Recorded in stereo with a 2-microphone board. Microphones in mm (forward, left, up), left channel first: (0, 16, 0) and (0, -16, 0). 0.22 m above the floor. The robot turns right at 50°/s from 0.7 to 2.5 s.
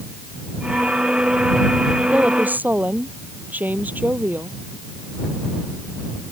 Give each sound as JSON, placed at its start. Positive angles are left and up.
{"t": 2.1, "sound": "a woman speaking", "side_deg": -40}